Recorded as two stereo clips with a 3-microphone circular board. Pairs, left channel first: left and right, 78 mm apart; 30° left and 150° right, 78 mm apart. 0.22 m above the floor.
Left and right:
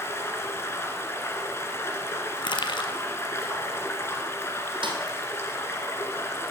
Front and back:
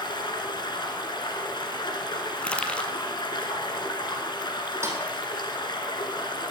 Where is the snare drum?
95° right, 2.5 m.